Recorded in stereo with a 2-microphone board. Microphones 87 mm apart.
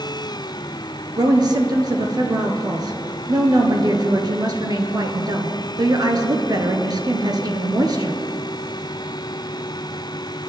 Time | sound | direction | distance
1.2 | a woman speaking | 50° right (ahead or behind) | 1.6 m